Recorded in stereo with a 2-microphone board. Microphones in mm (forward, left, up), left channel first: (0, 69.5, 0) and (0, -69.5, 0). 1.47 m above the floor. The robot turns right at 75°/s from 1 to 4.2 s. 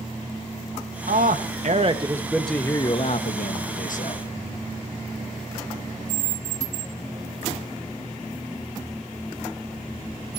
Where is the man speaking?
100° right, 1.5 m; by 4.2 s 135° left, 1.5 m.